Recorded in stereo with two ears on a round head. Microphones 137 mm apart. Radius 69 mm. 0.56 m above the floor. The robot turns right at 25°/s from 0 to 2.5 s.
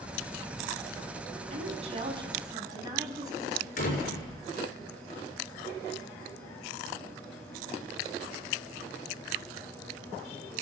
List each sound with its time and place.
1.5 s a woman speaking: 50° right (ahead or behind), 4 m; by 3.7 s 25° right (ahead or behind), 4 m
3.8 s a door slam: 60° left (ahead or behind), 6.5 m